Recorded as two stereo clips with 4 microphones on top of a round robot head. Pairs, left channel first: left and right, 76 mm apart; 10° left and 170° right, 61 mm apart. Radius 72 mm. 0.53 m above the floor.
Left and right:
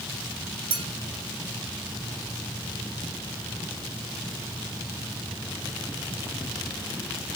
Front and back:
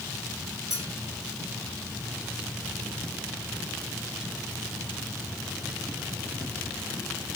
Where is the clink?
80° right, 2.5 m.